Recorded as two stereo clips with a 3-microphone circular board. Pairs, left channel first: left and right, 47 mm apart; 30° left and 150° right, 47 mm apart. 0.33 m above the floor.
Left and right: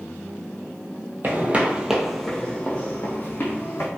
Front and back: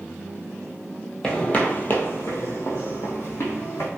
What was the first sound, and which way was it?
Footsteps, 40° right.